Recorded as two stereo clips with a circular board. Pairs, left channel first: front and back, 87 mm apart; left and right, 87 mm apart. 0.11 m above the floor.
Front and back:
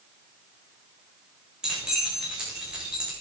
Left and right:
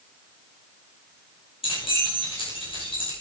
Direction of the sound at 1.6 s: 100° left.